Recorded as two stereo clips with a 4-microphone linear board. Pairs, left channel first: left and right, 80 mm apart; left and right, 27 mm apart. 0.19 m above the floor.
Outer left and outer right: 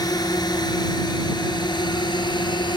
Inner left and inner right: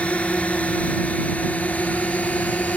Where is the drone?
55° left (ahead or behind); by 2.8 s 65° left (ahead or behind).